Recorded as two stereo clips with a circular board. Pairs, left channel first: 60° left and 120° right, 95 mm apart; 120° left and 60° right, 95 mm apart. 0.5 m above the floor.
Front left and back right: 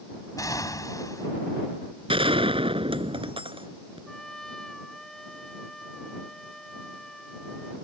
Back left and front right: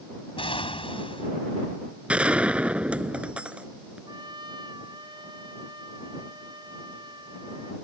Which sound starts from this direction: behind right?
A gunshot, at 2.1 s.